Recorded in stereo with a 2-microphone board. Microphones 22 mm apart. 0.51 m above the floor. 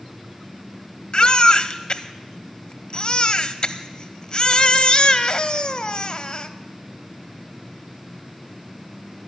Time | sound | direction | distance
1.1 | a baby crying | 40° left (ahead or behind) | 0.7 m